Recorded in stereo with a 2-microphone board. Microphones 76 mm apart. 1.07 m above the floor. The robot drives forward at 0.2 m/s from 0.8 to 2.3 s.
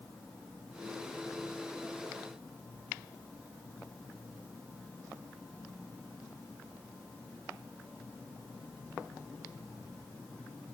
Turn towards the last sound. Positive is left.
No sound to turn to.